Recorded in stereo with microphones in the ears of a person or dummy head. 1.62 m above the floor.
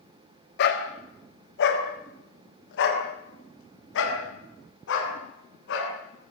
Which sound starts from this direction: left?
A dog barking, at 0.6 s.